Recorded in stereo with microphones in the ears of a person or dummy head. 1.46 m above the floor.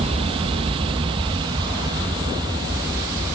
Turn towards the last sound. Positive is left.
turn(degrees=-20)  # may be behind; listen again after turning